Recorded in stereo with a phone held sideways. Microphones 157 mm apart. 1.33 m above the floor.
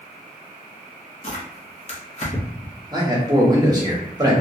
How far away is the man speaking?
About 0.7 m.